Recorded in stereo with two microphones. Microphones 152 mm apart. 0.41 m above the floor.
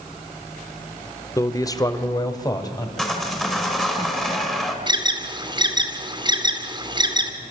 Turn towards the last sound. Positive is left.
turn(degrees=-30)  # may be behind; listen again after turning